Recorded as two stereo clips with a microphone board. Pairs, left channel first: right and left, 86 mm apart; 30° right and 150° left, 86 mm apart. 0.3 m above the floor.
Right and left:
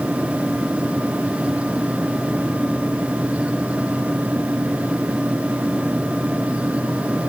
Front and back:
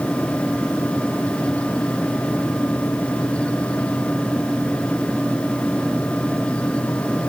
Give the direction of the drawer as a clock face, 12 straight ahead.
I don't hear a drawer.